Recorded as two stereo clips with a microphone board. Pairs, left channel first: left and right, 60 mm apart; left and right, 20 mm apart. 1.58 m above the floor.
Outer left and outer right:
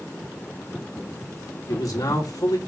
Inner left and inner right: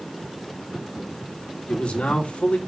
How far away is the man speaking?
About 2.5 m.